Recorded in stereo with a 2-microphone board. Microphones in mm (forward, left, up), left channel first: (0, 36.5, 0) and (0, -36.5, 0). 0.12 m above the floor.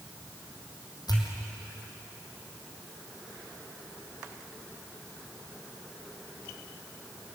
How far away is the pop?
About 4 m.